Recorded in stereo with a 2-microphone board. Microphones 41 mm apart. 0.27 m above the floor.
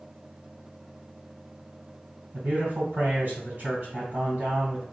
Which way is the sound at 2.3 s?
55° right (ahead or behind).